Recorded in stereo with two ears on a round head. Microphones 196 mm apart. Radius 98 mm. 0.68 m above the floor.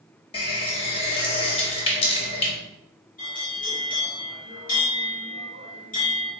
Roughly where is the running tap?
Left.